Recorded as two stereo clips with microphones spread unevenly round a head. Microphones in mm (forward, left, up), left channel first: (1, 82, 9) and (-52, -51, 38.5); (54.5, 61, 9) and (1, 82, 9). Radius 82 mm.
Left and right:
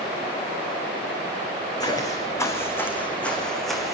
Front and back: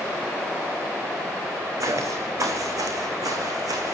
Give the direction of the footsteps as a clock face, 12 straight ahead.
8 o'clock.